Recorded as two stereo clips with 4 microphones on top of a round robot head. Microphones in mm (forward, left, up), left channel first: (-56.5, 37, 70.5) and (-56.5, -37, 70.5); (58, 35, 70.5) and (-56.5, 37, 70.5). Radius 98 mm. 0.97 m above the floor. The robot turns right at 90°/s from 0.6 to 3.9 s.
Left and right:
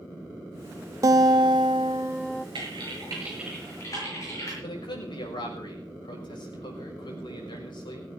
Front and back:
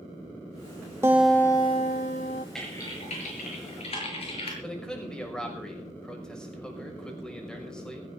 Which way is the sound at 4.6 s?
85° left.